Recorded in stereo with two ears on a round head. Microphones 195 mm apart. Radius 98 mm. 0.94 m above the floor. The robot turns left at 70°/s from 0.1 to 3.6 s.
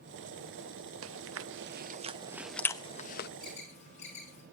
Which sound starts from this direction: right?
Chewing, at 1.0 s.